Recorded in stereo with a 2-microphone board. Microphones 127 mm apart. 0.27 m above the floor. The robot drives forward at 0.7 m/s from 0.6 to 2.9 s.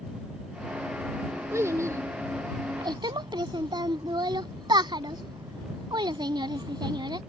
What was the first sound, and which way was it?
A child speaking, 20° right (ahead or behind).